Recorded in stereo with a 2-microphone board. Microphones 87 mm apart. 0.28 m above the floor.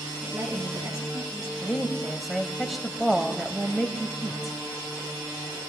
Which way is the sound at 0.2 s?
45° right (ahead or behind).